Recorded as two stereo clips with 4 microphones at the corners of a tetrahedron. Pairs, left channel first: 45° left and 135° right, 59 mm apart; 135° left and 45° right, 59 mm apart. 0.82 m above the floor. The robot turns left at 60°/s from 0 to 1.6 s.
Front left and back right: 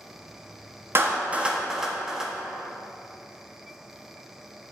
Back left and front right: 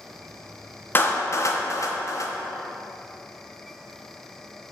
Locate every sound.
0.9 s a clap: 175° right, 1.1 m; by 2.3 s 145° left, 1.1 m